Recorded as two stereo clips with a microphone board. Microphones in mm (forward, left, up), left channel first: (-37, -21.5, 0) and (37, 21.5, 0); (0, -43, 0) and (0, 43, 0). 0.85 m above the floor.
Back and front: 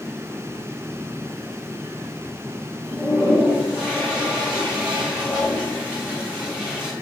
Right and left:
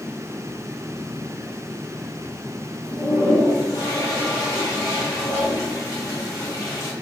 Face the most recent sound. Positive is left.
turn(degrees=-50)